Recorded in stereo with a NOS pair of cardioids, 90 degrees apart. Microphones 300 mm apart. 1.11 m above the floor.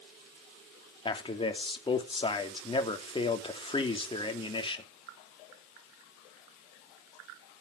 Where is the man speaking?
15° left, 2.5 m.